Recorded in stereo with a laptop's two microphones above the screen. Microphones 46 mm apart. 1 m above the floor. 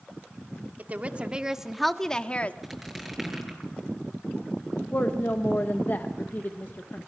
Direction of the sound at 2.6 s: Centre (ahead or behind).